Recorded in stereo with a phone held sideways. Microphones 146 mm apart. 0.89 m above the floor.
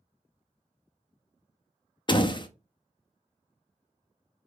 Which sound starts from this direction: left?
A door slam, at 2.1 s.